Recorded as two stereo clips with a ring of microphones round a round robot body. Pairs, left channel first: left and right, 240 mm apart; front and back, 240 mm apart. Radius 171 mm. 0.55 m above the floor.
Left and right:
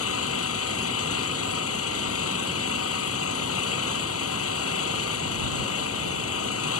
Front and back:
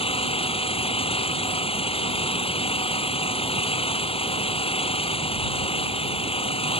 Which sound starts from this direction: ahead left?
An engine running, at 0.0 s.